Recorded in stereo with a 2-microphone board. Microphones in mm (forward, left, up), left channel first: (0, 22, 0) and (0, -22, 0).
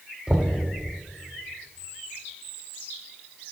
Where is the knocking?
15° right (ahead or behind), 0.8 m.